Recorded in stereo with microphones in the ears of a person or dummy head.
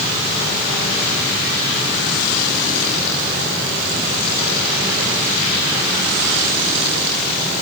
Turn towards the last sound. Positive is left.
No sound to turn to.